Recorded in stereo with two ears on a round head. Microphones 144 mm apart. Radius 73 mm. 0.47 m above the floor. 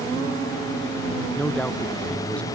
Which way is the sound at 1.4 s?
10° left (ahead or behind).